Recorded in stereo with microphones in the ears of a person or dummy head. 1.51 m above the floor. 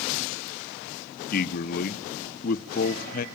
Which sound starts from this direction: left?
A man speaking, at 1.3 s.